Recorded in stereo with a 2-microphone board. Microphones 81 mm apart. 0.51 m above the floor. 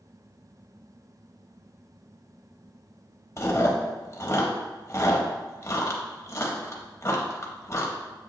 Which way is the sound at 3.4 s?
35° left (ahead or behind).